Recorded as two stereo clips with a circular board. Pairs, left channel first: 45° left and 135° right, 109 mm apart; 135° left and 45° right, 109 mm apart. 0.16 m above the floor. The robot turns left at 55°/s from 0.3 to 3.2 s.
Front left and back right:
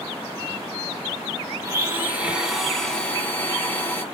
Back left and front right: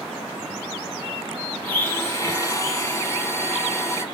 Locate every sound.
1.6 s a blender: 165° right, 0.8 m; by 4.0 s 105° left, 0.8 m